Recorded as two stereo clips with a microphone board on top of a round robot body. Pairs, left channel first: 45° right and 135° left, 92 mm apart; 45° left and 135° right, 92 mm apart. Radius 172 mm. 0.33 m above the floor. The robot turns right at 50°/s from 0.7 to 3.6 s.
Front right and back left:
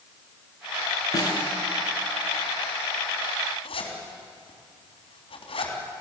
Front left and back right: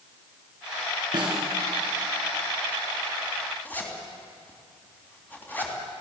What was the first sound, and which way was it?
A snare drum, 95° right.